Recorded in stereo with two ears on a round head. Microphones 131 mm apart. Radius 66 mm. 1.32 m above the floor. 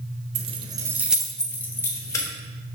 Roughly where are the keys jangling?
Right.